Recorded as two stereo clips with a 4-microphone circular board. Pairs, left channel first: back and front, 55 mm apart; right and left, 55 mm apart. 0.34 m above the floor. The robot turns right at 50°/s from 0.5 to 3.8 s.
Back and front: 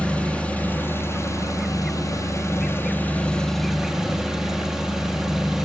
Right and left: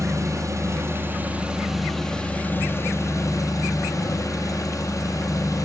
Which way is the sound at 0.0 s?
115° left.